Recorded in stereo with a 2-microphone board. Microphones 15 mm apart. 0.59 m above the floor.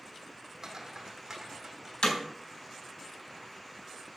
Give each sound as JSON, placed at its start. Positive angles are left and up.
{"t": 0.6, "sound": "footsteps", "side_deg": -30, "distance_m": 1.7}
{"t": 2.0, "sound": "hammering", "side_deg": 75, "distance_m": 4.0}